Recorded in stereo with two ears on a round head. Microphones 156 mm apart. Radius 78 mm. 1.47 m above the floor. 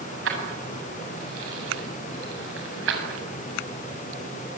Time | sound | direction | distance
0.2 | keys jangling | 75° right (ahead or behind) | 8 m